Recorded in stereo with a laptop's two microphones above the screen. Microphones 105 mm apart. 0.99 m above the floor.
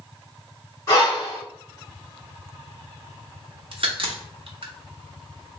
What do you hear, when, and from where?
0.9 s breathing: 30° left (ahead or behind), 1.8 m
3.7 s a crack: 60° right (ahead or behind), 0.8 m